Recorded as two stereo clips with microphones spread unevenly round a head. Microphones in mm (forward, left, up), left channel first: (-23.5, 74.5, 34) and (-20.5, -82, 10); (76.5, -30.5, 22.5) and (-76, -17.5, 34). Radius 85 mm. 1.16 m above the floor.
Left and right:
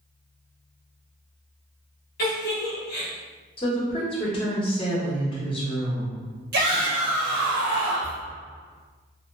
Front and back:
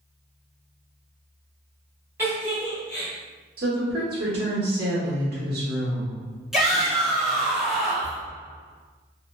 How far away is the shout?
About 1.2 m.